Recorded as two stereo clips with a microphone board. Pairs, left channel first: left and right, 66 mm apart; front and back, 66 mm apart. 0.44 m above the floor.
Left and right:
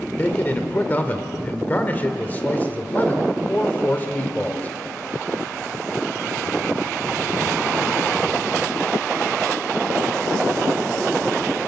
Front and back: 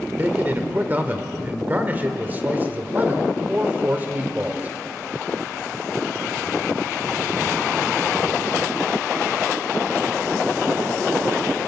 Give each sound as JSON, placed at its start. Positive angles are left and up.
{"t": 0.2, "sound": "a man speaking", "azimuth_deg": 135, "distance_m": 1.6}